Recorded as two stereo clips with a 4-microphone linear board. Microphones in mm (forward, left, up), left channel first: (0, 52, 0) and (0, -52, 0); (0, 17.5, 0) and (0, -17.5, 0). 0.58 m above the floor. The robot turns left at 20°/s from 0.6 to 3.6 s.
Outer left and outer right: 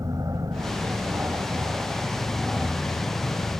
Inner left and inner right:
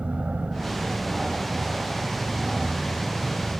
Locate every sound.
0.0 s an aircraft: 140° right; by 3.6 s 160° left